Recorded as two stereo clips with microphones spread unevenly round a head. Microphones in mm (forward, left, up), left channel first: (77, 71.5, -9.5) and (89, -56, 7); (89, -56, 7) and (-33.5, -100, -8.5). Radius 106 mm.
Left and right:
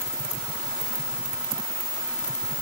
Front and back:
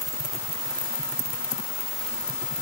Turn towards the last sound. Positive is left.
No sound to turn to.